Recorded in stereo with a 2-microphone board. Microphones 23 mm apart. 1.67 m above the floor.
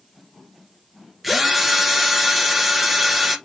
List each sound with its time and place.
1.2 s a drill: 5° right (ahead or behind), 1.2 m